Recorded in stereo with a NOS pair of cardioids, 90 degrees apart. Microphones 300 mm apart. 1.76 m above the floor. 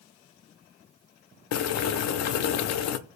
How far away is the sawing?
No sawing in this recording.